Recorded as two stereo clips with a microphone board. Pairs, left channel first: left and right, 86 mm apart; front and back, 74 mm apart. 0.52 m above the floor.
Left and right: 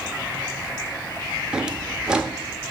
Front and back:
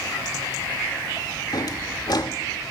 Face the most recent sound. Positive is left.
turn(degrees=-10)